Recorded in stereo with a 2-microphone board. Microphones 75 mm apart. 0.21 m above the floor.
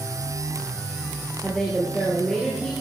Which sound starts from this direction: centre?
A woman speaking, at 1.4 s.